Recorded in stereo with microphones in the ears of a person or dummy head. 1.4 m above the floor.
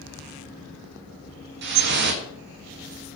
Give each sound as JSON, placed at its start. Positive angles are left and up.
{"t": 1.6, "sound": "dripping", "side_deg": -50, "distance_m": 1.8}